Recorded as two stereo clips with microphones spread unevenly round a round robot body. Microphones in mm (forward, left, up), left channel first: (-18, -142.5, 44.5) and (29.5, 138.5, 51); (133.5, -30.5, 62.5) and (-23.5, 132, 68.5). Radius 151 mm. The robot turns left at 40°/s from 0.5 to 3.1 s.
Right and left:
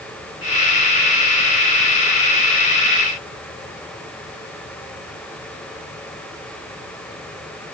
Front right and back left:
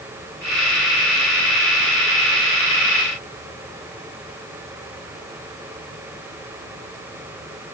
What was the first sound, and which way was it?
Only background noise.